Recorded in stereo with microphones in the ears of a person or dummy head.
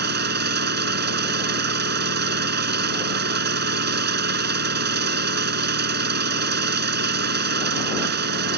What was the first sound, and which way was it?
An engine running, 50° right (ahead or behind).